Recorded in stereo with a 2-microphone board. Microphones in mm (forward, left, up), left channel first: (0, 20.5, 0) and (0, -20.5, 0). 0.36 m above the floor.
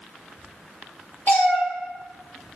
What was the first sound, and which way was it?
A cat meowing, 50° left (ahead or behind).